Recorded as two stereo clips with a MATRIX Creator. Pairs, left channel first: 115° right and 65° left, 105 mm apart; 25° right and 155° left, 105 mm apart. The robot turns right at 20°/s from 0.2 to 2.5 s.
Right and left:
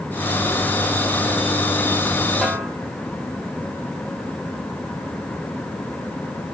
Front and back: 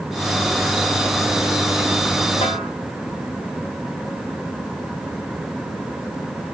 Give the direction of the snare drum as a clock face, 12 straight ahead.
1 o'clock.